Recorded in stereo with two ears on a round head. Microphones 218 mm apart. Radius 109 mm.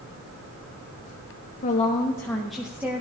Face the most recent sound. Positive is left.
turn(degrees=-10)  # may be behind; listen again after turning